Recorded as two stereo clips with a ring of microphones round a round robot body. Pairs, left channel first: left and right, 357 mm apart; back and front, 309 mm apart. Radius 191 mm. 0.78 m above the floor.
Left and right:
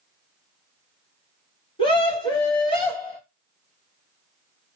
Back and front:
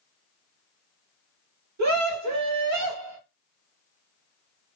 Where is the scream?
15° left, 1.5 m.